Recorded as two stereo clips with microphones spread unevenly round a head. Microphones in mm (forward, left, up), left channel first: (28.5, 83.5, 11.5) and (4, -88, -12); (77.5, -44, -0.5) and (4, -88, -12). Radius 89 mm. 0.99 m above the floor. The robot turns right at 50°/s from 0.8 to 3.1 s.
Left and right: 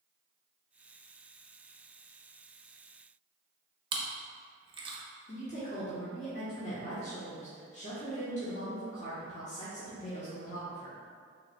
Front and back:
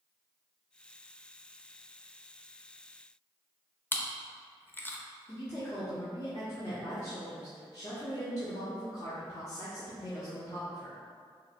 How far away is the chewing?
About 0.7 m.